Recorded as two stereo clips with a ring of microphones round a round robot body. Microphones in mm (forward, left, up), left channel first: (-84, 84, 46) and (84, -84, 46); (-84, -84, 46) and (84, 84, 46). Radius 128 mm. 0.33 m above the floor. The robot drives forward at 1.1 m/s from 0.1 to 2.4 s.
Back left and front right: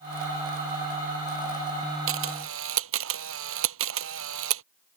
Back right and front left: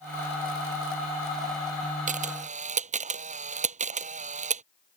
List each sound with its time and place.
2.1 s a camera shutter: 15° right